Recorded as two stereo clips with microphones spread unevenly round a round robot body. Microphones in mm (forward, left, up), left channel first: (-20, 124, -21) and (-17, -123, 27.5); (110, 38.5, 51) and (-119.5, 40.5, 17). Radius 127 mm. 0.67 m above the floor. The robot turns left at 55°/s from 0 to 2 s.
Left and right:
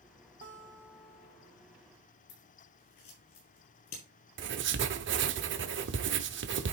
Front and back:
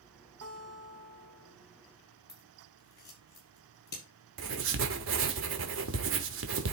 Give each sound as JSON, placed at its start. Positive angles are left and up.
{"t": 0.4, "sound": "a guitar", "azimuth_deg": -145, "distance_m": 1.3}
{"t": 2.3, "sound": "scissors", "azimuth_deg": 50, "distance_m": 6.0}
{"t": 4.4, "sound": "writing", "azimuth_deg": -140, "distance_m": 1.0}